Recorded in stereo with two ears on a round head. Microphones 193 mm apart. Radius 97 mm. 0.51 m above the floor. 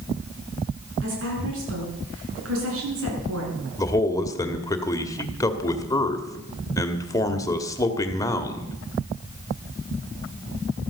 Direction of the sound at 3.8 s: 15° left (ahead or behind).